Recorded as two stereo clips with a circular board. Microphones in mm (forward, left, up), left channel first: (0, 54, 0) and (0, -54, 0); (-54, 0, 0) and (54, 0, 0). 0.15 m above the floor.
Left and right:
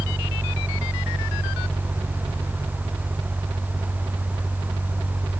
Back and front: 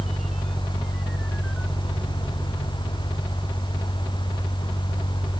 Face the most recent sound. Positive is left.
No sound to turn to.